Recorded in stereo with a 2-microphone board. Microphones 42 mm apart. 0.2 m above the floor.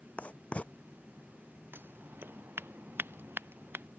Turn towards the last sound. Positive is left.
turn(degrees=-55)  # may be behind; listen again after turning